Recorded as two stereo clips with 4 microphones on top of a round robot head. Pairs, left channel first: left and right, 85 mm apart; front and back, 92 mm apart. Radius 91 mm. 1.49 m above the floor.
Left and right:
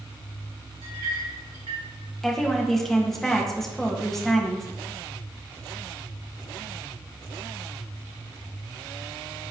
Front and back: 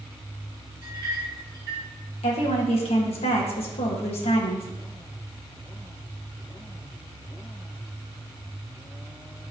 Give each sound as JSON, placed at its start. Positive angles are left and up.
{"t": 0.8, "sound": "a clink", "azimuth_deg": -115, "distance_m": 2.5}
{"t": 2.2, "sound": "a woman speaking", "azimuth_deg": 5, "distance_m": 1.9}